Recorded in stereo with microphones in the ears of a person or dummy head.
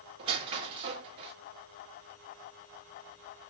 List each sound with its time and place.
0.2 s a squeak: 30° right (ahead or behind), 0.9 m